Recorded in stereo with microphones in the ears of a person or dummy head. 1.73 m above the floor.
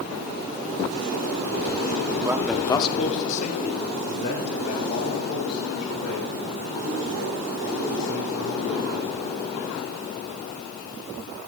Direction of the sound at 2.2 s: 15° right (ahead or behind).